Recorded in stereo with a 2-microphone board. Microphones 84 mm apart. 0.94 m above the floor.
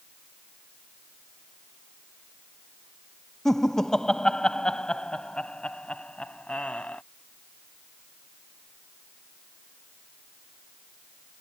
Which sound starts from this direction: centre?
Laughter, at 3.5 s.